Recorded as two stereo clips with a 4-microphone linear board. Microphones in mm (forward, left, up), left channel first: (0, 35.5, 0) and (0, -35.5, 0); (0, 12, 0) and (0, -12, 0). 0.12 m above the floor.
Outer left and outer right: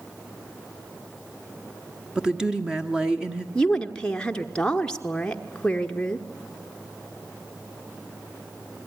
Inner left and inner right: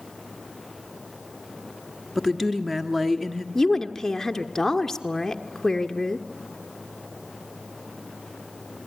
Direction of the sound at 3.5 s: 15° left (ahead or behind).